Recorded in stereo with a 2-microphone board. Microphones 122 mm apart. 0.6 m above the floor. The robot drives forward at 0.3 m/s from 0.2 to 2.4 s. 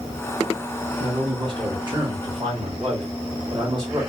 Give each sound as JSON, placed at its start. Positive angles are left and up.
{"t": 1.0, "sound": "a man speaking", "side_deg": -45, "distance_m": 1.7}